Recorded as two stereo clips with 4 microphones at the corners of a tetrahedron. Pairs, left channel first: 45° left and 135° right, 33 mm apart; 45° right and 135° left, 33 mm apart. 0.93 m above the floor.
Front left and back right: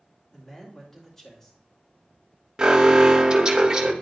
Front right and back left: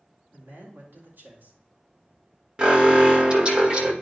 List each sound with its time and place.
0.3 s a man speaking: 125° left, 3 m
2.6 s an alarm: 175° left, 1.4 m